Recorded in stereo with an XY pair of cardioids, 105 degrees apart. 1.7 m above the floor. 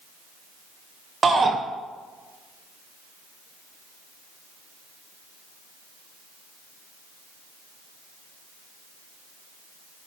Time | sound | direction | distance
1.2 | a shout | 30° right | 1.5 m